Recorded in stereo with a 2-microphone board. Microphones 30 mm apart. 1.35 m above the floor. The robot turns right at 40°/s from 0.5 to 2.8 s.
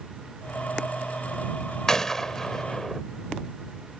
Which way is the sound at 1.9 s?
25° left (ahead or behind).